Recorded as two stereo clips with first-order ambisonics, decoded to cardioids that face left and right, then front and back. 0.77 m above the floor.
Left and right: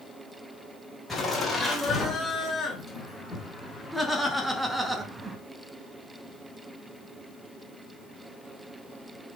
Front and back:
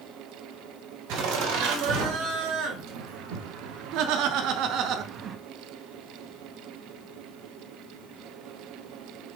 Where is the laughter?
175° left, 3.5 m; by 5.4 s 145° right, 0.7 m.